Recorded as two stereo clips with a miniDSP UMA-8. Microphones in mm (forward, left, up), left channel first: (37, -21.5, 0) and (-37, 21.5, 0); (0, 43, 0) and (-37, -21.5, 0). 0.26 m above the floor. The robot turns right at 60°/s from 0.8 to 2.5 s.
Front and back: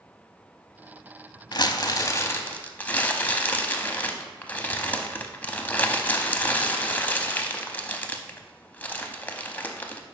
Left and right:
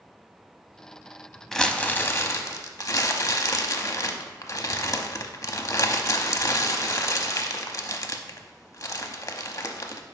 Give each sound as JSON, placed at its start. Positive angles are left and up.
{"t": 1.5, "sound": "crumpling", "azimuth_deg": -25, "distance_m": 0.6}